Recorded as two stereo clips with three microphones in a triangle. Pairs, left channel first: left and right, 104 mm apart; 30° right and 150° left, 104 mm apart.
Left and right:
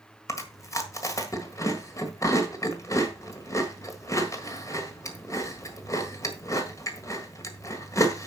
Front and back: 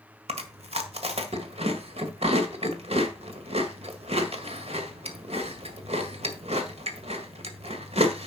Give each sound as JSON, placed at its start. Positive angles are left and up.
{"t": 0.3, "sound": "chewing", "azimuth_deg": 150, "distance_m": 1.7}